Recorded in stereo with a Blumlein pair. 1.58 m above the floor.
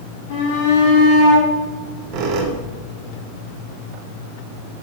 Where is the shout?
50° left, 3.5 m.